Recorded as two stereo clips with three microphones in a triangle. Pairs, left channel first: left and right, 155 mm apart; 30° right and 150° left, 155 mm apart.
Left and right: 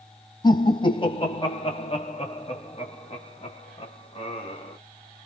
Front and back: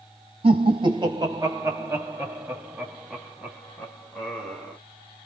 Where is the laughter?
130° left, 1.8 m; by 4.8 s 50° left, 3 m.